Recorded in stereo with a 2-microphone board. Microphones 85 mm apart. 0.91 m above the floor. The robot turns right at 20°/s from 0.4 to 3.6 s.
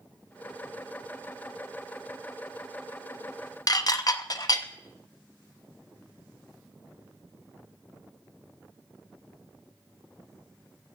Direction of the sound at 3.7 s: 45° left (ahead or behind).